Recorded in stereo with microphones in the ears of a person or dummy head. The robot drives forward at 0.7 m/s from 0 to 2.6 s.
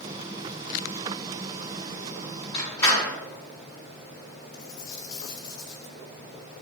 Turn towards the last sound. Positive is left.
turn(degrees=50)  # may be behind; listen again after turning